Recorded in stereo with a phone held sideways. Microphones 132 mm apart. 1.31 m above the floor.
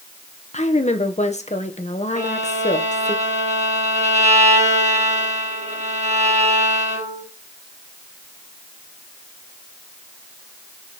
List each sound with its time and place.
0.5 s a woman speaking: 60° left (ahead or behind), 1.2 m
2.1 s a violin: 65° right (ahead or behind), 3 m